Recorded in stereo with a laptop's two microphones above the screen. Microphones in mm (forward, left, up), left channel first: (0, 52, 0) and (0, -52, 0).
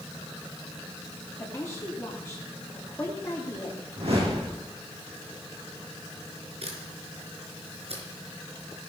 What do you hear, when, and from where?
1.4 s a woman speaking: 25° left (ahead or behind), 2 m
4.0 s a whoosh: 65° right (ahead or behind), 7.5 m
6.6 s a camera shutter: 65° right (ahead or behind), 4.5 m